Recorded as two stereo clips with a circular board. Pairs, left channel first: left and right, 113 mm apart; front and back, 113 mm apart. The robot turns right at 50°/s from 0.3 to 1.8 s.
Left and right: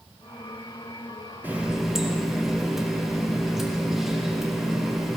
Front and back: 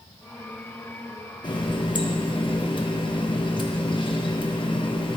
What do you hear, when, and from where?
1.4 s a running tap: 25° right, 0.9 m; by 5.2 s 5° right, 0.9 m